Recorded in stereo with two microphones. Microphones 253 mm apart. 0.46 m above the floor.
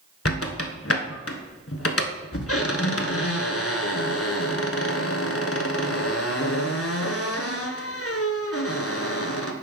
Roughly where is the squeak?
Left.